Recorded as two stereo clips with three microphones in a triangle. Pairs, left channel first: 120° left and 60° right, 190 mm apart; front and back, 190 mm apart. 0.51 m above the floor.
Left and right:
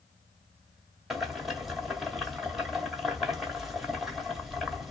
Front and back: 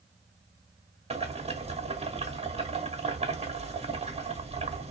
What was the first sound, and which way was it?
Boiling, 150° right.